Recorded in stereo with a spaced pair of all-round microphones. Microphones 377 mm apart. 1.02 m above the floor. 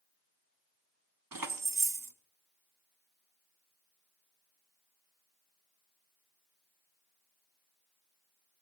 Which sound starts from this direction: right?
Keys jangling, at 1.3 s.